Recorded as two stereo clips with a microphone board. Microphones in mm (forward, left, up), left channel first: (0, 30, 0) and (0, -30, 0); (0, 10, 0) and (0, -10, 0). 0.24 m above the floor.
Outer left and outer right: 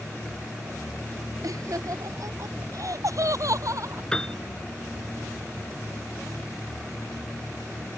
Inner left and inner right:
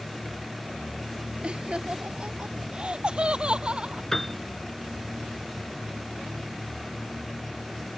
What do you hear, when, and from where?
1.4 s laughter: 70° right (ahead or behind); by 4.0 s 60° right (ahead or behind)
4.1 s a piano: 15° left (ahead or behind)